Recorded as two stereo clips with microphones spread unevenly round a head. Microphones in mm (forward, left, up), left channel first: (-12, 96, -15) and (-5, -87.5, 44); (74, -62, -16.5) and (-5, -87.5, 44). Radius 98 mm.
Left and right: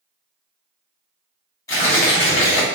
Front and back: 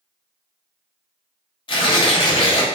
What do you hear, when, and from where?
1.7 s tearing paper: 20° left, 3 m